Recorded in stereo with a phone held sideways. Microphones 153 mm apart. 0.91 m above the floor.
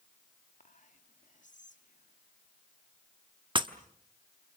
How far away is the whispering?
About 1.8 m.